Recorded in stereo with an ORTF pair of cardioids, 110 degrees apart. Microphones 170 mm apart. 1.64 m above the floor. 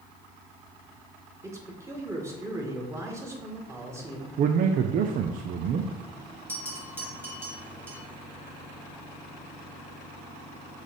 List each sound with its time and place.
1.4 s a man speaking: 15° right, 1.9 m
4.4 s a man speaking: 55° right, 0.6 m
6.5 s a bell: 15° right, 2 m